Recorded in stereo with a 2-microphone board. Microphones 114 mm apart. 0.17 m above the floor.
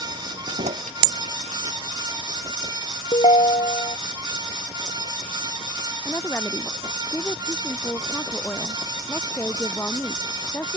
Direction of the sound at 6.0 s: 20° left (ahead or behind).